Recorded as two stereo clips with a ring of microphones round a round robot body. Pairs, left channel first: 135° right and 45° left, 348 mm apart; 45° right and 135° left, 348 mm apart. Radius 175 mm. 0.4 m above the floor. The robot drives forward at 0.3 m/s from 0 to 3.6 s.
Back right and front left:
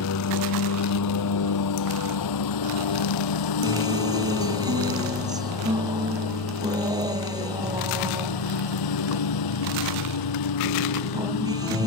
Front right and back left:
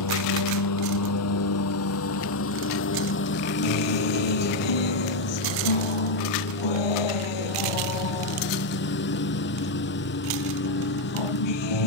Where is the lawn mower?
85° right; by 11.9 s 105° right.